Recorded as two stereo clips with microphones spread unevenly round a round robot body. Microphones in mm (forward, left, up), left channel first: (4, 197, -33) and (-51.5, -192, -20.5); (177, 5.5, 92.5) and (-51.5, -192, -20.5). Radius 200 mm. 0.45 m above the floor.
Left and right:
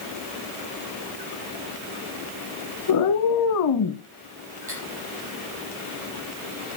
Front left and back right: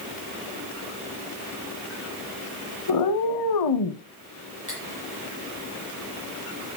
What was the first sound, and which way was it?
A cat meowing, 35° left.